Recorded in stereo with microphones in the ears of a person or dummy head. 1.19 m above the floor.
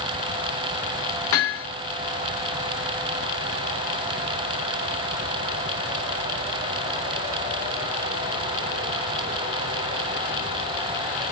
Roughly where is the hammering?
Left.